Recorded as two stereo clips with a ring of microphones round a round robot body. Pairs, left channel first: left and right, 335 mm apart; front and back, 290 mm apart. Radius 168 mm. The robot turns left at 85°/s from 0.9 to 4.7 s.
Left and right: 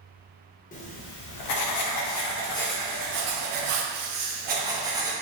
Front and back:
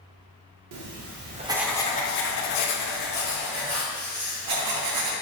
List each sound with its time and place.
0.7 s writing: 155° left, 0.5 m; by 5.1 s 170° right, 0.5 m